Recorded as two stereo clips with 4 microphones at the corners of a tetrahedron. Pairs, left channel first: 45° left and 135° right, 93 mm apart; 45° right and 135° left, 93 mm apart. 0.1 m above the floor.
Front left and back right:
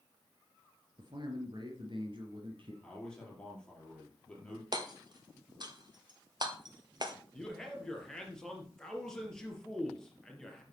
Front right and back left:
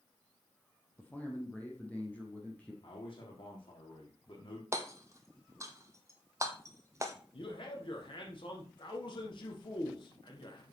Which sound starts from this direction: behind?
Hammering, at 4.7 s.